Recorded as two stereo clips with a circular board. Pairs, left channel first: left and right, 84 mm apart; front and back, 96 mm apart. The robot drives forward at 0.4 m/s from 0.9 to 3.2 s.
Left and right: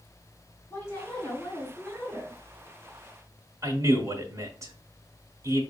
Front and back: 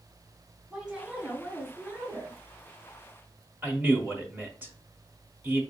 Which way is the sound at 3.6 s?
120° right.